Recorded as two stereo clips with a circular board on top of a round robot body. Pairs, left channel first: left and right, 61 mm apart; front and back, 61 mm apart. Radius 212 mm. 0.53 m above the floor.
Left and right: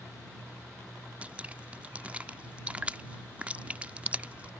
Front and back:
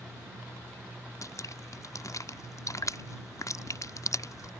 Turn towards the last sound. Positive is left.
turn(degrees=-25)